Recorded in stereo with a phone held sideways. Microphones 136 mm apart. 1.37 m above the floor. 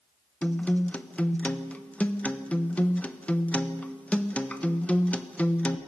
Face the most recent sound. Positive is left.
turn(degrees=10)  # may be behind; listen again after turning